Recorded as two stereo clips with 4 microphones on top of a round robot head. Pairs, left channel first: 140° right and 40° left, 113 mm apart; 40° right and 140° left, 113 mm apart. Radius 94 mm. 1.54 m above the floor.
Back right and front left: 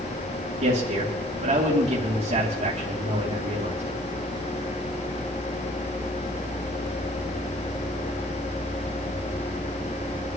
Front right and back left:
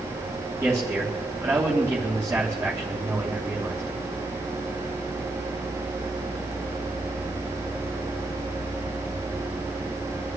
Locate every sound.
0.6 s a man speaking: 60° left, 3 m